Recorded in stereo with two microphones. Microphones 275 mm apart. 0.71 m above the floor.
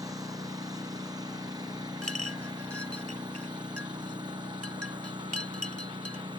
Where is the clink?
60° right (ahead or behind).